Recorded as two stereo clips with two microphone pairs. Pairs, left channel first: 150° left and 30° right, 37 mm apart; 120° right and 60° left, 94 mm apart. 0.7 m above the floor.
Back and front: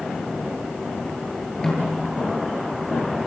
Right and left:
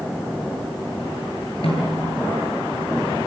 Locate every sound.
1.6 s a snare drum: 135° right, 9.5 m